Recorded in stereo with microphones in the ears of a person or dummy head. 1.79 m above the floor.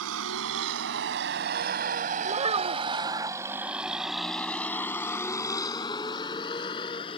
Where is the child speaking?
35° right (ahead or behind).